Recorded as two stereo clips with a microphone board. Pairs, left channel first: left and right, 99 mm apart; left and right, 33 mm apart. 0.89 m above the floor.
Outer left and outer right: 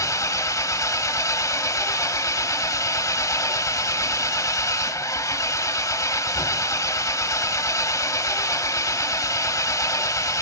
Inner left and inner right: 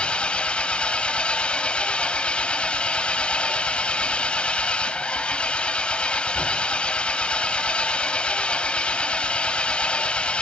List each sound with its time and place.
0.0 s an engine running: 35° left (ahead or behind), 1.2 m